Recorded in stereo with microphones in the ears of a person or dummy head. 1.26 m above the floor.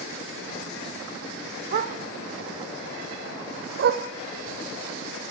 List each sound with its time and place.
1.7 s a dog barking: 50° right (ahead or behind), 1.6 m